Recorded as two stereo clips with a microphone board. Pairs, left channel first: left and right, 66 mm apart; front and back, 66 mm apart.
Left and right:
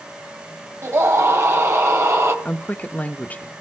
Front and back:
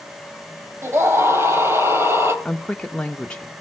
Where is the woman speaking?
60° left, 0.9 m.